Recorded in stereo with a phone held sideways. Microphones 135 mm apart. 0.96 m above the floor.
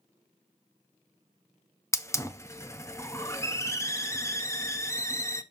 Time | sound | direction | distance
1.9 | a hiss | 20° left (ahead or behind) | 0.6 m